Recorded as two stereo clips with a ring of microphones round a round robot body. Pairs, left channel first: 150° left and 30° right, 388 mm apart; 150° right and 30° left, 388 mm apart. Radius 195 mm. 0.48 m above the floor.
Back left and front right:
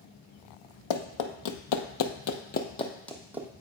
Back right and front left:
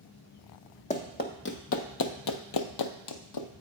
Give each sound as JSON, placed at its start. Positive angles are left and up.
{"t": 0.9, "sound": "running footsteps", "azimuth_deg": 140, "distance_m": 1.0}